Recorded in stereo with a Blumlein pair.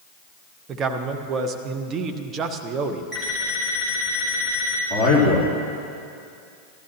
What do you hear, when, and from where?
0.7 s a man speaking: 25° right, 1.0 m
3.1 s an alarm clock: 5° left, 3.5 m
4.9 s a man speaking: 15° right, 3.5 m